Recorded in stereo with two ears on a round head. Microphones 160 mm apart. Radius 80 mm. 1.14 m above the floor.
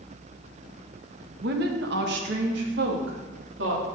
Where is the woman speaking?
60° right (ahead or behind), 1.4 m; by 3.9 s 70° right (ahead or behind), 3 m.